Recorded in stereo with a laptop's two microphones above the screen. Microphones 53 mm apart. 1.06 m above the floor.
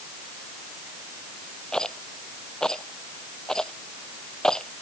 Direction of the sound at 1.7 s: 15° left (ahead or behind).